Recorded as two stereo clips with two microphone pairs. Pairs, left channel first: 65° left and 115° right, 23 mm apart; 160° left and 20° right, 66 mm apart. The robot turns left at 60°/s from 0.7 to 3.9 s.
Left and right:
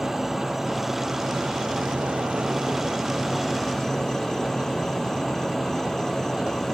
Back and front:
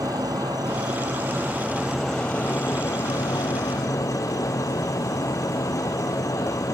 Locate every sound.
0.0 s an insect: 30° right; by 6.8 s 140° left